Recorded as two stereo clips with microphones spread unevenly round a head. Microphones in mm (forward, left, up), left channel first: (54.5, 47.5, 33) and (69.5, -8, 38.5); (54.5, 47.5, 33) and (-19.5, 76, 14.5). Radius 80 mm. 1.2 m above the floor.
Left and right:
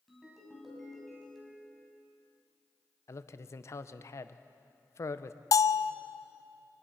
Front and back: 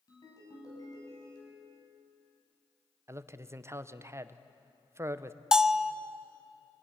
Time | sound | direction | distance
0.1 | a ringtone | 15° left | 6.5 m
3.1 | a man speaking | 120° left | 0.8 m
5.5 | a bell | 75° left | 0.6 m